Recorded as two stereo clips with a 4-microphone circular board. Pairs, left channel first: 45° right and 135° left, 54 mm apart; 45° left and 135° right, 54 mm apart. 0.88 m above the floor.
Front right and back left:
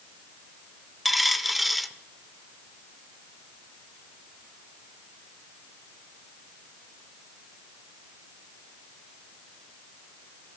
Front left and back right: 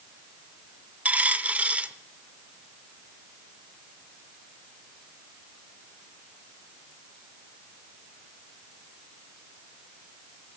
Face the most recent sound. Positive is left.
turn(degrees=-135)